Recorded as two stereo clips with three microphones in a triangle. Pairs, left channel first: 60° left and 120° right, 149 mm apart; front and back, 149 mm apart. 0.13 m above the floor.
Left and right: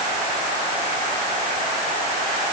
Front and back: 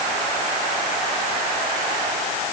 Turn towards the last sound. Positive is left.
No sound to turn to.